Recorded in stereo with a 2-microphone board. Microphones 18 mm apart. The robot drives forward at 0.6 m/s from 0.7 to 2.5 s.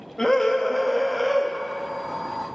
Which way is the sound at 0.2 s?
25° left (ahead or behind).